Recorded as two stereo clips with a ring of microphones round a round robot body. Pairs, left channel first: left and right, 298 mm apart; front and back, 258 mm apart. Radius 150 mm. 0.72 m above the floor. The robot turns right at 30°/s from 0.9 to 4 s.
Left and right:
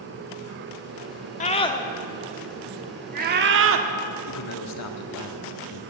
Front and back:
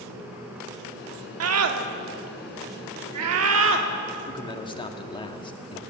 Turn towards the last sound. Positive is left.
turn(degrees=70)